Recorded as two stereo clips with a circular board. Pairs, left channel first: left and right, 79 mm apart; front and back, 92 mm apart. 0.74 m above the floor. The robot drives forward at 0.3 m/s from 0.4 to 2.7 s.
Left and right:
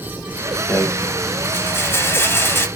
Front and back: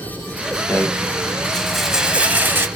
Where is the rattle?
45° left, 0.7 m; by 2.7 s 130° left, 0.7 m.